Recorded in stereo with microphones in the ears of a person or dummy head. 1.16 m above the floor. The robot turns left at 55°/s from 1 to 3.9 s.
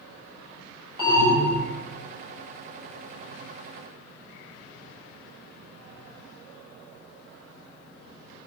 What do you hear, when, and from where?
1.0 s an alarm: 25° right, 3 m; by 1.6 s 60° right, 3 m